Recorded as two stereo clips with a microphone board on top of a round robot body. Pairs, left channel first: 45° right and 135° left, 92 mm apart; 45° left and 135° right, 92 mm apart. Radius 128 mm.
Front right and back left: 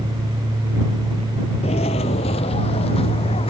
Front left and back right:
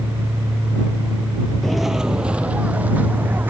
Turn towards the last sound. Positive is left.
turn(degrees=-65)